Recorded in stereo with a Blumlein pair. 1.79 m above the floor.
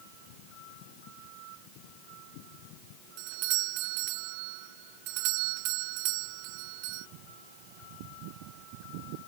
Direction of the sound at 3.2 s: 45° right.